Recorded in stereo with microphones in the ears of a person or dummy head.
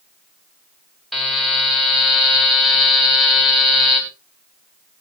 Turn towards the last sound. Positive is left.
turn(degrees=0)  # may be behind; listen again after turning